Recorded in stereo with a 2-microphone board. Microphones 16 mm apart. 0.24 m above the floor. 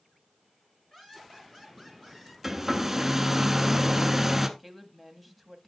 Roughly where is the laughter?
Left.